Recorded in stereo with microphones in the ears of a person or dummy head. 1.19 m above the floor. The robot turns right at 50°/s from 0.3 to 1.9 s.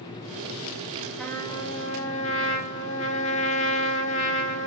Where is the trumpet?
5° left, 0.6 m; by 4.7 s 40° left, 0.6 m.